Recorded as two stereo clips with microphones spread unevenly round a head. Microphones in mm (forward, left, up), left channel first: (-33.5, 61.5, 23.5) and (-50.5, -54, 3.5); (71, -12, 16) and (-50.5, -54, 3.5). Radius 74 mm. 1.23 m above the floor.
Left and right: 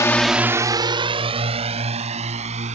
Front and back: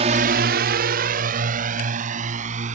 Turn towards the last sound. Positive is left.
turn(degrees=-130)